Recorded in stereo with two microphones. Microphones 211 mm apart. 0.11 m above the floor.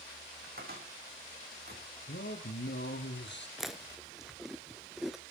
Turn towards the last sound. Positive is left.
turn(degrees=0)  # may be behind; listen again after turning